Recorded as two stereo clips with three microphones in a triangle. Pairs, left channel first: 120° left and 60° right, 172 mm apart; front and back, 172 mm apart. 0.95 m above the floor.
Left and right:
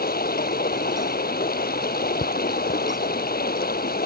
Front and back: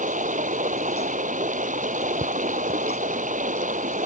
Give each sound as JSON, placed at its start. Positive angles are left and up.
{"t": 0.0, "sound": "running water", "azimuth_deg": 140}